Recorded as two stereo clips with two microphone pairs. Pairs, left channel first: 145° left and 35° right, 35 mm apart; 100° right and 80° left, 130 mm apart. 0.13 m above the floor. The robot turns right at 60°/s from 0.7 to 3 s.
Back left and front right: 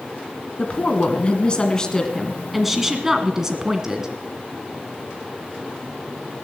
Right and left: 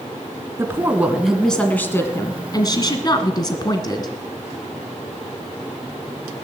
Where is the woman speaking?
130° left, 1.5 m; by 4.1 s 90° right, 1.5 m.